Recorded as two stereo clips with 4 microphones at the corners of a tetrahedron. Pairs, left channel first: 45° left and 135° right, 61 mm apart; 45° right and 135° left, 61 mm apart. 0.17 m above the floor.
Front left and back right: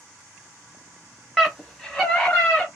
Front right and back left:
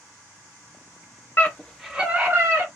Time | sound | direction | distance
1.4 | a scream | 45° right | 1.2 m